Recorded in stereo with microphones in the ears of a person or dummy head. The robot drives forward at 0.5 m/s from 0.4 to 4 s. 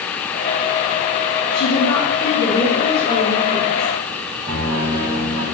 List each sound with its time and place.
1.5 s a woman speaking: 60° left (ahead or behind), 0.7 m; by 3.9 s 20° left (ahead or behind), 1.6 m
4.5 s a piano: 25° right (ahead or behind), 1.4 m